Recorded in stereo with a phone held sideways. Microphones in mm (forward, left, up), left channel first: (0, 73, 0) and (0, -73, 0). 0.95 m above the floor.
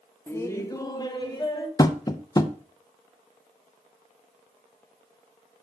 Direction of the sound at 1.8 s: 25° left (ahead or behind).